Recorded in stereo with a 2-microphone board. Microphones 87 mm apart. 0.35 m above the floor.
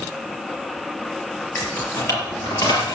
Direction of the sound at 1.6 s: 30° left (ahead or behind).